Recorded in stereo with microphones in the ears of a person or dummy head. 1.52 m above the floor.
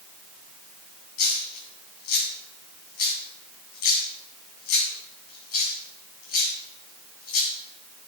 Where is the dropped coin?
55° left (ahead or behind), 3 m.